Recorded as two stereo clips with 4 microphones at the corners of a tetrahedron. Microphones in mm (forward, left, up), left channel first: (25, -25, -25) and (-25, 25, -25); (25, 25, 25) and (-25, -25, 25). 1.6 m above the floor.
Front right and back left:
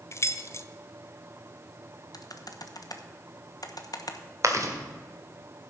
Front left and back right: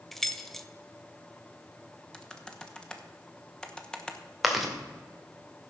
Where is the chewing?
140° left, 1.6 m.